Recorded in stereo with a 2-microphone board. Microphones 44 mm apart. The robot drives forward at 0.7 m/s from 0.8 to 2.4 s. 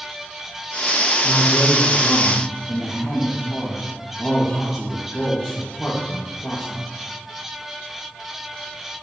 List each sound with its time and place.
1.2 s a man speaking: 10° left (ahead or behind), 1.5 m